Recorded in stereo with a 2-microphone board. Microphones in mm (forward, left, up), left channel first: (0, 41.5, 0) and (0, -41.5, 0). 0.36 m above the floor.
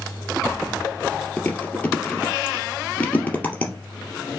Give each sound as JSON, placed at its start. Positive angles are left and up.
{"t": 1.4, "sound": "chewing", "side_deg": 20, "distance_m": 2.0}